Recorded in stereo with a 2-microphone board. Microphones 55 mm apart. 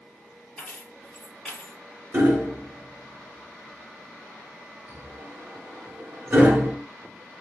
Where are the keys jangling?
10° left (ahead or behind), 2.5 m.